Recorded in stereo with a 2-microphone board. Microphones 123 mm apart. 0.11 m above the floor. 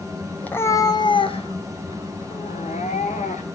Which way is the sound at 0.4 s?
10° left (ahead or behind).